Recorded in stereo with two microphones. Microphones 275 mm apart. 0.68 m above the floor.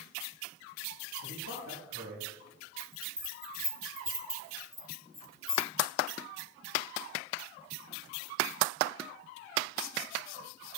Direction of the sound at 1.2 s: 80° right.